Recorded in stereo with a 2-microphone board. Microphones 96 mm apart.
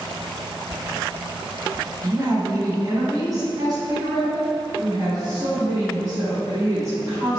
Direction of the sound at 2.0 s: 35° right (ahead or behind).